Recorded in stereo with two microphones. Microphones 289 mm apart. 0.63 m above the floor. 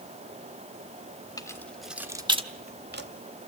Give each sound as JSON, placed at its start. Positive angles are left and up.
{"t": 1.4, "sound": "keys jangling", "side_deg": 15, "distance_m": 1.0}